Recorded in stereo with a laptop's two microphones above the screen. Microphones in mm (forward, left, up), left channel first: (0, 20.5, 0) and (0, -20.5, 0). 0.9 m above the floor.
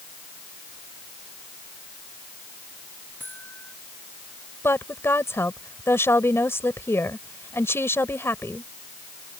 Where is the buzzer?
50° left (ahead or behind).